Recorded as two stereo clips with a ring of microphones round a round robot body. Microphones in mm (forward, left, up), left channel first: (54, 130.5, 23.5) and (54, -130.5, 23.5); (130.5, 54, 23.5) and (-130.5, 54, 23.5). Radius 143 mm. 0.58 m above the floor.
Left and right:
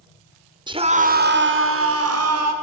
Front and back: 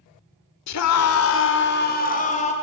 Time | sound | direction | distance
0.7 | a scream | 15° right | 1.7 m